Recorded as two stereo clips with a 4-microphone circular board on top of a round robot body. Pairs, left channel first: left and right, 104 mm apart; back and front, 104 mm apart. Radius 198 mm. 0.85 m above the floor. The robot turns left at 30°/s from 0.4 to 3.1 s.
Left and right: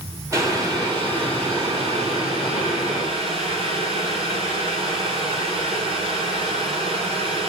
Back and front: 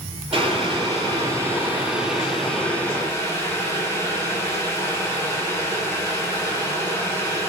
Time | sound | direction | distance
0.3 | boiling | 30° right | 6.5 m